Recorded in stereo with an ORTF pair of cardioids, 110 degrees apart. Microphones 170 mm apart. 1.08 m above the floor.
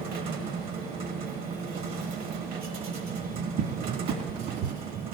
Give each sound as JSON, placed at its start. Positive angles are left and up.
{"t": 0.0, "sound": "a machine running", "azimuth_deg": -65, "distance_m": 1.2}
{"t": 3.6, "sound": "a cupboard door", "azimuth_deg": -55, "distance_m": 1.2}